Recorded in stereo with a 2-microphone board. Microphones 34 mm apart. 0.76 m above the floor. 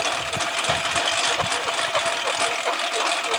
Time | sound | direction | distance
0.0 | a lawn mower | centre (ahead or behind) | ?